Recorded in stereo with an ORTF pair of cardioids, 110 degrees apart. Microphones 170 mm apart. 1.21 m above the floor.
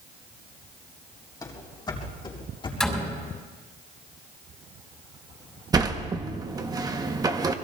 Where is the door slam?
Straight ahead, 5.5 m.